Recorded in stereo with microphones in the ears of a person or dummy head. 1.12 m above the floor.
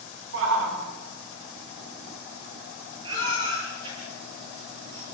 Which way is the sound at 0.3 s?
70° right (ahead or behind).